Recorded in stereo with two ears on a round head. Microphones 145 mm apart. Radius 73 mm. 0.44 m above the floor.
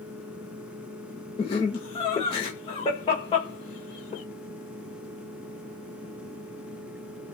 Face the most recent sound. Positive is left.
turn(degrees=35)  # may be behind; listen again after turning